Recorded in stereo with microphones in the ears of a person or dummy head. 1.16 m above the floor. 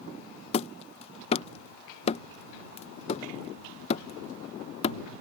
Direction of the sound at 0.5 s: 30° left (ahead or behind).